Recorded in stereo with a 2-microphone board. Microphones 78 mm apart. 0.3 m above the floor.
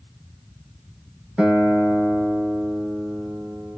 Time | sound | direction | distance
1.4 | a guitar | 15° right (ahead or behind) | 0.8 m